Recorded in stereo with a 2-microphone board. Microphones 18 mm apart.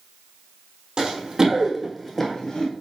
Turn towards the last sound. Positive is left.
turn(degrees=50)  # may be behind; listen again after turning